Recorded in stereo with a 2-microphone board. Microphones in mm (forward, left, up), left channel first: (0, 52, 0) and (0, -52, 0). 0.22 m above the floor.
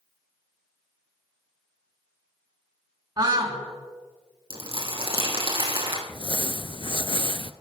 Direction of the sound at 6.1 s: 50° left (ahead or behind).